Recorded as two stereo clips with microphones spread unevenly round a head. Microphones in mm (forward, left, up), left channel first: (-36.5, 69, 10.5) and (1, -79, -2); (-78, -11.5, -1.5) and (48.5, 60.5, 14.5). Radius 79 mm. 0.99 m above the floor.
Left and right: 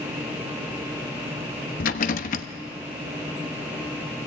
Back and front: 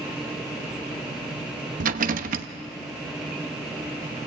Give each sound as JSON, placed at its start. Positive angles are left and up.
{"t": 1.8, "sound": "a rattle", "azimuth_deg": 60, "distance_m": 1.0}